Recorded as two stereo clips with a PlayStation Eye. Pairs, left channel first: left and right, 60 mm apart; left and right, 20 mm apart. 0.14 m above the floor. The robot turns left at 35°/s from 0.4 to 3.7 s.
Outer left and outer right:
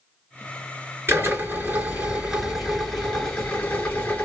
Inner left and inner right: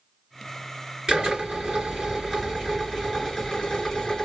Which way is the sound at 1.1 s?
120° right.